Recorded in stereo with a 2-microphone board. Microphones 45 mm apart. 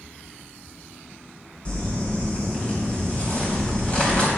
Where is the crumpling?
25° left (ahead or behind), 3 m.